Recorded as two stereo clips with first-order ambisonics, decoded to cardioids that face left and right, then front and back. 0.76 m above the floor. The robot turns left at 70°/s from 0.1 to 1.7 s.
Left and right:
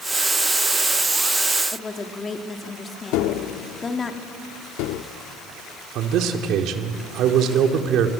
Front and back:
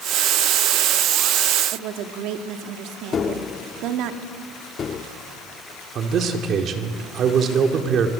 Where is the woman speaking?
165° left, 1.5 m.